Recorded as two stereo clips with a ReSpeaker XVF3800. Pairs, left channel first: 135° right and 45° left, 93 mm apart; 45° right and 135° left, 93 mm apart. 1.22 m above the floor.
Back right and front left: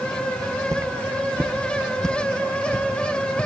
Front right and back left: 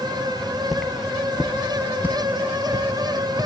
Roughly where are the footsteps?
Ahead left.